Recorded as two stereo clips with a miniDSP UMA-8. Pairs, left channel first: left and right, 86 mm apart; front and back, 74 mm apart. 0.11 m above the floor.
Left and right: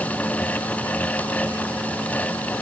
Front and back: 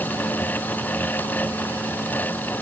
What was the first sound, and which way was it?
Only background noise.